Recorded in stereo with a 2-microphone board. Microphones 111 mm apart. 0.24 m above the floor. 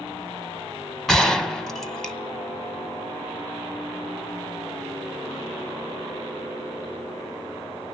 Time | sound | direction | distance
1.1 | a gunshot | 5° left (ahead or behind) | 1.3 m